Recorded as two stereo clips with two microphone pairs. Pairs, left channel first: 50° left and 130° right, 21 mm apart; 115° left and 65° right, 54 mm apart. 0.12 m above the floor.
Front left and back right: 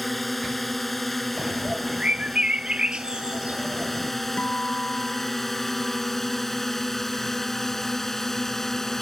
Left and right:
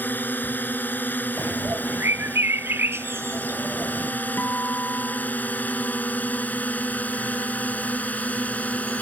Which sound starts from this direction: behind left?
A drone, at 0.0 s.